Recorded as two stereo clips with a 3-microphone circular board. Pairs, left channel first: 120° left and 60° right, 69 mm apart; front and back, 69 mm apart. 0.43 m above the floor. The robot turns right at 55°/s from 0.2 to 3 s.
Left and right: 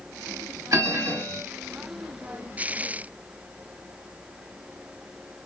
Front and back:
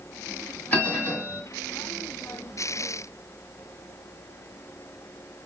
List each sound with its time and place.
0.7 s a bell: 60° right, 1.8 m; by 1.4 s 20° right, 1.8 m